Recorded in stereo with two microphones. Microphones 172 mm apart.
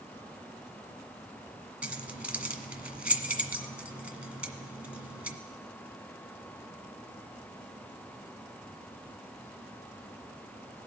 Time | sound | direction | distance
1.8 | keys jangling | 10° right (ahead or behind) | 0.9 m